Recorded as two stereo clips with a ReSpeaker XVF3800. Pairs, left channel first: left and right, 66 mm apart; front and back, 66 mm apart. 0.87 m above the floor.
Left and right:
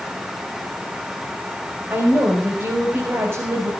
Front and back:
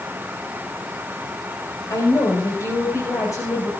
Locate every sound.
1.9 s a woman speaking: 35° right, 4.5 m; by 3.7 s 40° right, 5.5 m